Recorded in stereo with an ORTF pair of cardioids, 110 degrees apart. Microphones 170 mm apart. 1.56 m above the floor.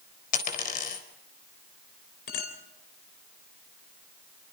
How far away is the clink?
About 4 m.